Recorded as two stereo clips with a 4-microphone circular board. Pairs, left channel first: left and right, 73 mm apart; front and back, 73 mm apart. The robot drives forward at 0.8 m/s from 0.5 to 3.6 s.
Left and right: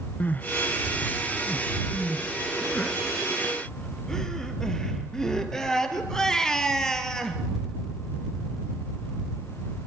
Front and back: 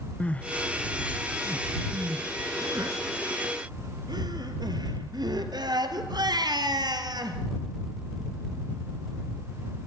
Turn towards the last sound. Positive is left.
turn(degrees=170)